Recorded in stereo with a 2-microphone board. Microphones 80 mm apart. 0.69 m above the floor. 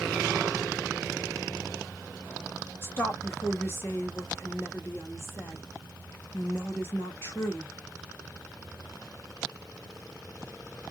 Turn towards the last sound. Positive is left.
turn(degrees=30)  # may be behind; listen again after turning